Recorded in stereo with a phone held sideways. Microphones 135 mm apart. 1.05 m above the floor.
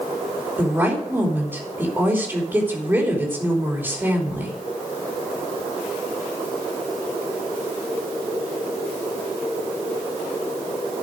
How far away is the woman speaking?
About 3 m.